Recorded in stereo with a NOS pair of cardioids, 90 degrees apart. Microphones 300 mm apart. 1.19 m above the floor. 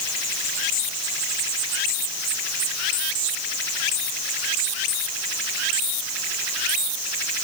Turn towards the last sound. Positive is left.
No sound to turn to.